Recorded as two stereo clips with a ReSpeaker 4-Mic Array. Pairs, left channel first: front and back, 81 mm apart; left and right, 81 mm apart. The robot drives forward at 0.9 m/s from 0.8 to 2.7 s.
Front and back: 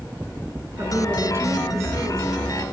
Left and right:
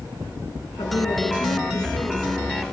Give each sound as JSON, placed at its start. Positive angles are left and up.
{"t": 0.8, "sound": "a woman speaking", "azimuth_deg": 115, "distance_m": 4.5}